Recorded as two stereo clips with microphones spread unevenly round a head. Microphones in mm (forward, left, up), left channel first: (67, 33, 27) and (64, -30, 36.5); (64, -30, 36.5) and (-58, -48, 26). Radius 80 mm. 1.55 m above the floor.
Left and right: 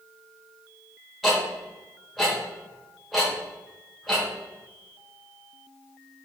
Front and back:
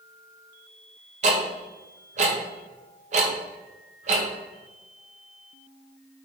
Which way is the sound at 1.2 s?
175° right.